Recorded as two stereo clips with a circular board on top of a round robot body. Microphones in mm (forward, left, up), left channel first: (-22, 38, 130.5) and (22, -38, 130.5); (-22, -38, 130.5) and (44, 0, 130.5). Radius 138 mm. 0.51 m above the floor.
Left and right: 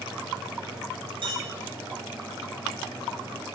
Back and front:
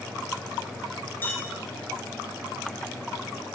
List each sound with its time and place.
1.2 s a clink: 85° right, 4 m